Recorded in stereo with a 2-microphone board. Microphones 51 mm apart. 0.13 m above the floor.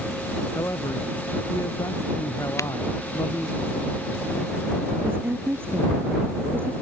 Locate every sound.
0.6 s a man speaking: 75° left (ahead or behind)
2.6 s breaking glass: 65° left (ahead or behind)
5.0 s a woman speaking: 45° right (ahead or behind)